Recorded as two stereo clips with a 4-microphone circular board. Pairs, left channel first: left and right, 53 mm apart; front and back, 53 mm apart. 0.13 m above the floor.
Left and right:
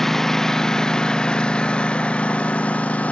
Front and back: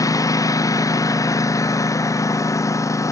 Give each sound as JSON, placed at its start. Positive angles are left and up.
{"t": 0.0, "sound": "a lawn mower", "azimuth_deg": 5}